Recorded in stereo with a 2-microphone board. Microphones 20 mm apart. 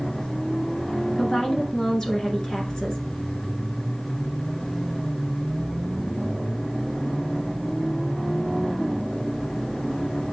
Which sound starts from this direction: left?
A woman speaking, at 1.2 s.